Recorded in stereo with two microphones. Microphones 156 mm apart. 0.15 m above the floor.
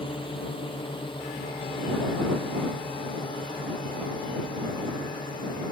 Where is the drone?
35° left (ahead or behind); by 5.7 s 30° left (ahead or behind).